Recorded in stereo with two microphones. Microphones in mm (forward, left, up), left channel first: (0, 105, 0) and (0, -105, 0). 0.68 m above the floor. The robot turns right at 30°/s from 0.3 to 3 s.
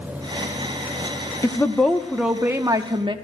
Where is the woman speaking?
165° left, 0.9 m; by 3.1 s 150° right, 0.9 m.